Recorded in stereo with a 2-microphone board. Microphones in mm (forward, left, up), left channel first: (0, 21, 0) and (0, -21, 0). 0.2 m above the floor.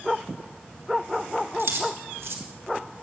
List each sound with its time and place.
1.6 s keys jangling: 75° right (ahead or behind), 3.5 m